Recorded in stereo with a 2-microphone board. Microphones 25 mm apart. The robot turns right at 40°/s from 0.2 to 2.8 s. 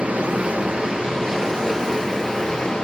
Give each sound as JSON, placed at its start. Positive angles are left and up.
{"t": 0.0, "sound": "running water", "azimuth_deg": -65, "distance_m": 1.5}